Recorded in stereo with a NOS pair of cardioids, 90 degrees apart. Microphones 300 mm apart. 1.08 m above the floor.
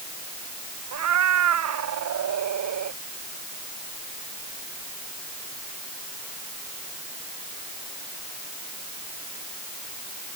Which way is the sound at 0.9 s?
60° right.